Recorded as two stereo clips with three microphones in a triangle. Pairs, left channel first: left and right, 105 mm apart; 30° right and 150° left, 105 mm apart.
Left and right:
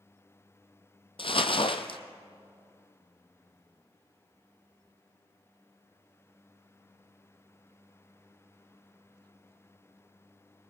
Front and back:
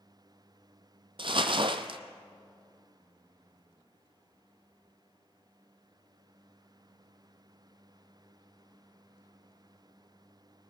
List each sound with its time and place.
1.2 s crumpling: 115° left, 0.9 m